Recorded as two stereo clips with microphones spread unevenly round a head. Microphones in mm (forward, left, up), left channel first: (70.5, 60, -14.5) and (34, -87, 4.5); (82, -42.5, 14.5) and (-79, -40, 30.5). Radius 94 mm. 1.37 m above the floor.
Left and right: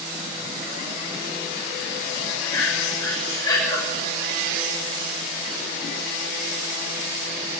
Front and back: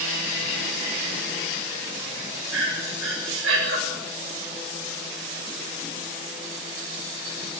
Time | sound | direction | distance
2.5 | breathing | 150° left | 7 m